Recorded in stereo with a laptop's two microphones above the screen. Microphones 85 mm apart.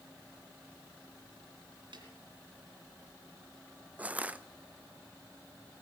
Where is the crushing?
20° right (ahead or behind), 0.6 m.